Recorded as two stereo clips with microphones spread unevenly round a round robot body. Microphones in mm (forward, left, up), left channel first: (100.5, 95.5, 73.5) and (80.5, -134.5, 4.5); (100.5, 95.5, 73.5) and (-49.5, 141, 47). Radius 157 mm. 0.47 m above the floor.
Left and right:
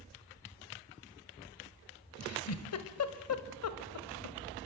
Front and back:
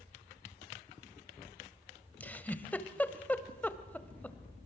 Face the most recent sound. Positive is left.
turn(degrees=65)